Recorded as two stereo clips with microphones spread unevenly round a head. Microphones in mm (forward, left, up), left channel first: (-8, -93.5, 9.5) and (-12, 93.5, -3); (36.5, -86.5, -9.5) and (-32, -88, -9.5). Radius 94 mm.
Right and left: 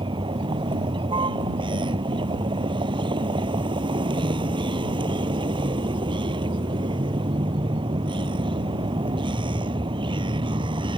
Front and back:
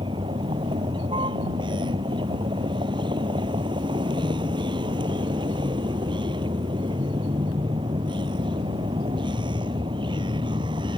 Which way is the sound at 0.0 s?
155° left.